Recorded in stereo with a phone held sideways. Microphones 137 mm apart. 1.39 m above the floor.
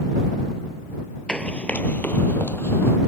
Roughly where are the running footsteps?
Centre.